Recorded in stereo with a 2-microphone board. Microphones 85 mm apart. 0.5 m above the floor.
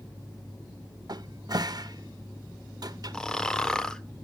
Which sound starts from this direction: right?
A cupboard door, at 1.1 s.